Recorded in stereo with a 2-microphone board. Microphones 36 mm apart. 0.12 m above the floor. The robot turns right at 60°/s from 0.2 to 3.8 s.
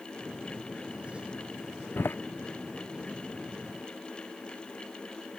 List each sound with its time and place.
2.0 s a door slam: 75° left (ahead or behind); by 2.1 s 85° left